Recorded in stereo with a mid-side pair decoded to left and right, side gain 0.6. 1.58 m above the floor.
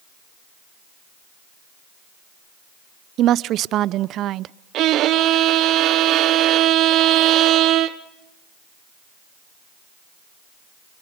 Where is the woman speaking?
55° right, 0.6 m.